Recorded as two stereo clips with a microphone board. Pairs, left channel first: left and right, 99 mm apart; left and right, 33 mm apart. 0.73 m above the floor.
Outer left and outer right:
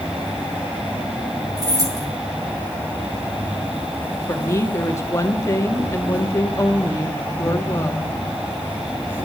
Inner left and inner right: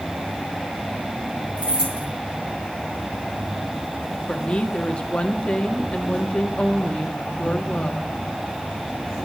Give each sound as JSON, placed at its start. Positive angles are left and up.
{"t": 0.0, "sound": "an insect", "side_deg": -20, "distance_m": 4.0}
{"t": 1.6, "sound": "keys jangling", "side_deg": -35, "distance_m": 5.0}
{"t": 4.3, "sound": "a woman speaking", "side_deg": 30, "distance_m": 1.4}